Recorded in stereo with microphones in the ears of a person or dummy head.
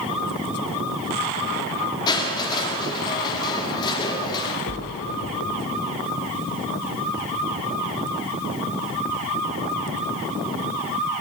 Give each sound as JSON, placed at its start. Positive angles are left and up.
{"t": 2.1, "sound": "crushing", "side_deg": 25, "distance_m": 3.0}
{"t": 4.7, "sound": "a splash", "side_deg": 65, "distance_m": 2.5}